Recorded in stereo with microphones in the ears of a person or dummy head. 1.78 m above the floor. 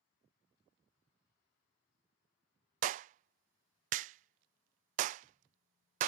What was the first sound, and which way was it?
A clap, 45° right (ahead or behind).